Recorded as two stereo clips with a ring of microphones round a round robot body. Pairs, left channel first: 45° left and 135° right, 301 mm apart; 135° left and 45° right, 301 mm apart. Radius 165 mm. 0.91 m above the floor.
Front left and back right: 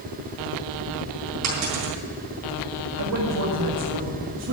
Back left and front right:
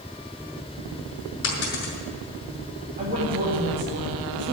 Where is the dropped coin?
170° right, 5 m.